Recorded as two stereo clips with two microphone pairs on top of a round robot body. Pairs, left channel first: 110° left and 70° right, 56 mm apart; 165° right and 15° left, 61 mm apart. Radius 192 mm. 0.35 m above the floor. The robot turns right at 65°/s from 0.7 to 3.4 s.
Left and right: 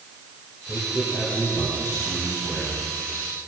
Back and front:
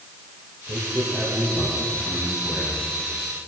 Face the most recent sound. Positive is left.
turn(degrees=-125)